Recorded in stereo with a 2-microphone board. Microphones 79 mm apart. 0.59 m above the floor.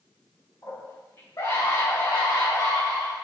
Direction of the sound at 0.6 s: 40° left (ahead or behind).